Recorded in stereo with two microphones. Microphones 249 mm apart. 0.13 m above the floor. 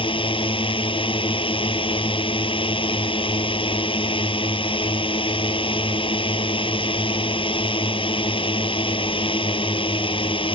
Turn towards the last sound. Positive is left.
turn(degrees=20)  # may be behind; listen again after turning